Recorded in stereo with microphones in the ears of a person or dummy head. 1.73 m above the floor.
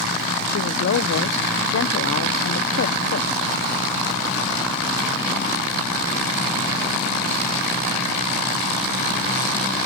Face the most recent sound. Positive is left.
turn(degrees=65)  # may be behind; listen again after turning